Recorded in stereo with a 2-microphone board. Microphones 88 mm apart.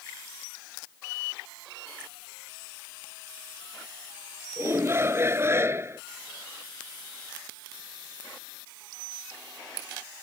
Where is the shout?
30° right (ahead or behind).